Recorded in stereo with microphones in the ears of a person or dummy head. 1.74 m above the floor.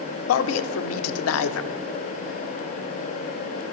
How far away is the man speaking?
About 0.5 m.